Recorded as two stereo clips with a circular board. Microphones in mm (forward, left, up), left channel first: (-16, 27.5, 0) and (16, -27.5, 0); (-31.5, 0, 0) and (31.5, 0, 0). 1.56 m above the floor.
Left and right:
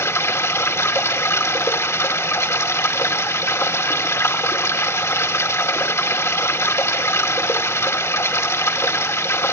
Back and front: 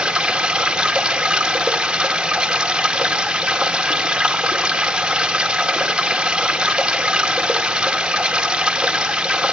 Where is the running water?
80° left, 2 m.